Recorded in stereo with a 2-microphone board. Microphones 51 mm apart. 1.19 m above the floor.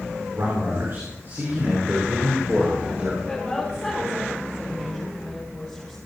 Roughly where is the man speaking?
Right.